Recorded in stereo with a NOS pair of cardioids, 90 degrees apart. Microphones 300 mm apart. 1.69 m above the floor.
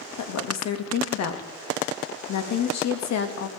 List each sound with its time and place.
0.2 s a woman speaking: 65° left, 2 m